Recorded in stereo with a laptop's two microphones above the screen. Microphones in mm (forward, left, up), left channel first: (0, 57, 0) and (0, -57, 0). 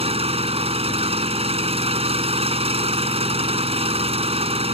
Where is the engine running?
60° right (ahead or behind).